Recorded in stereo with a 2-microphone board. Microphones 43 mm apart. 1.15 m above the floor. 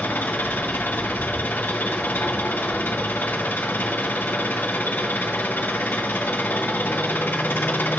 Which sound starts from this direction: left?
An engine running, at 0.0 s.